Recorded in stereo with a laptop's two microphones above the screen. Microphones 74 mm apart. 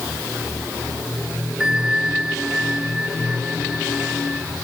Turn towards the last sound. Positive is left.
turn(degrees=-10)  # may be behind; listen again after turning